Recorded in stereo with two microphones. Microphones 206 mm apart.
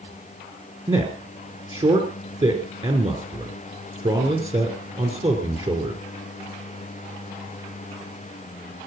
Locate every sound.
0.9 s a man speaking: 30° right (ahead or behind), 3 m